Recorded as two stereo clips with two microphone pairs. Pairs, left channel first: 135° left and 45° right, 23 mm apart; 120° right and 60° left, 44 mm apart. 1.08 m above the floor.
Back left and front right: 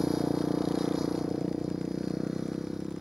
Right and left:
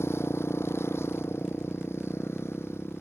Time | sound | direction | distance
0.0 | a motorcycle | 125° right | ?